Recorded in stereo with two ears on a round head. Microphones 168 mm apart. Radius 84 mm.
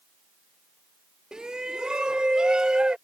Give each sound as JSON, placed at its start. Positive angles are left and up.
{"t": 1.3, "sound": "a shout", "side_deg": -5}